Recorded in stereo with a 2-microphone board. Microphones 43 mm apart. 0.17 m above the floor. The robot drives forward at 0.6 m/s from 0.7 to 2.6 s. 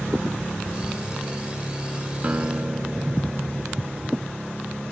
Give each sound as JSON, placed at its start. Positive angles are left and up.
{"t": 2.2, "sound": "a guitar", "side_deg": -35}